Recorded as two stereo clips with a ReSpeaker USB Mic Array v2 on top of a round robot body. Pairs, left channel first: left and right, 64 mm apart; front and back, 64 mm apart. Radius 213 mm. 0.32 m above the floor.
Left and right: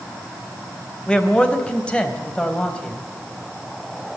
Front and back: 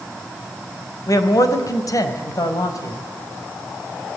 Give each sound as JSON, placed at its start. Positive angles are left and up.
{"t": 1.1, "sound": "a man speaking", "azimuth_deg": 15, "distance_m": 3.5}